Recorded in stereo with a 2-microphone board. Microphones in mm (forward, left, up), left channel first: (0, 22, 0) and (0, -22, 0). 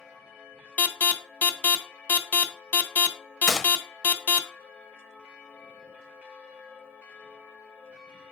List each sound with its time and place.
0.8 s an alarm: 35° left (ahead or behind), 0.7 m
3.5 s a gunshot: 5° right (ahead or behind), 0.8 m